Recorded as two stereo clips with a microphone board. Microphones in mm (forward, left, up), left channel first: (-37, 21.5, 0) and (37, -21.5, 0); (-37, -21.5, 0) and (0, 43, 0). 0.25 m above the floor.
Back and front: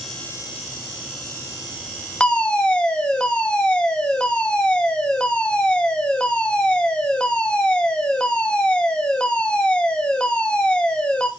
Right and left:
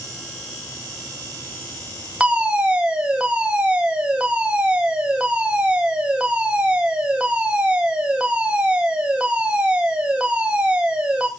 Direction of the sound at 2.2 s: 100° left.